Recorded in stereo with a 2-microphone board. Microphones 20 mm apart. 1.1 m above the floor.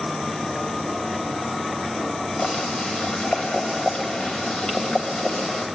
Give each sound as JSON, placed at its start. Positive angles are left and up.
{"t": 2.4, "sound": "boiling", "side_deg": 55, "distance_m": 3.0}